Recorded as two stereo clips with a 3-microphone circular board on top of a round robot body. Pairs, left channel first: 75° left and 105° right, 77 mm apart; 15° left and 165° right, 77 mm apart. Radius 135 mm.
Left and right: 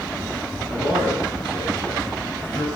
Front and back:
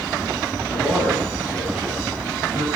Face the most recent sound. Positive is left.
turn(degrees=-95)